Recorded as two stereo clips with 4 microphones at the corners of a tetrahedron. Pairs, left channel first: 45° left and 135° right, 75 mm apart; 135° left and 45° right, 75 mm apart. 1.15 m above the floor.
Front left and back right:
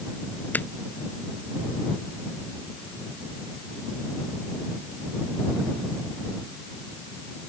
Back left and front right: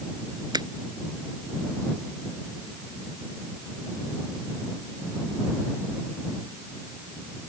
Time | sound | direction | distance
0.5 | a finger snap | 20° right | ?